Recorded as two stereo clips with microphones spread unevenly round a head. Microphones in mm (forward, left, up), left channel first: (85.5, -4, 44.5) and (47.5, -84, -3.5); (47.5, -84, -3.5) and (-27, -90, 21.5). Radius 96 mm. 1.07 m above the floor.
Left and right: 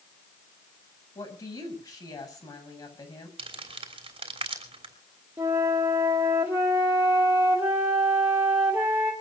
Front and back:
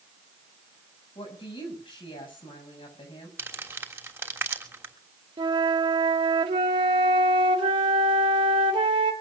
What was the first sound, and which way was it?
A woman speaking, 20° left.